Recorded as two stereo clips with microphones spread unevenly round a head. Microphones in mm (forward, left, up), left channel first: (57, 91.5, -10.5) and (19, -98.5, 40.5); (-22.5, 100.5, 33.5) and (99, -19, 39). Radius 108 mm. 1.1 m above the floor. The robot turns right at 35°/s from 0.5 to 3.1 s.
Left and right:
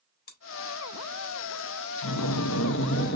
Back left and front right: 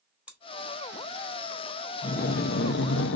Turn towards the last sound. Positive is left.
turn(degrees=130)